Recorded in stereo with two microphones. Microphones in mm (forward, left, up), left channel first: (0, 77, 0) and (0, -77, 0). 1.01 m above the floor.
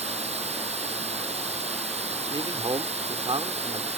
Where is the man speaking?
35° right (ahead or behind).